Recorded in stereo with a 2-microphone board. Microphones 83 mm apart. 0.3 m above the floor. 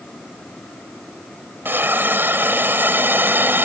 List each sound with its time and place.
1.6 s a hiss: 30° right (ahead or behind)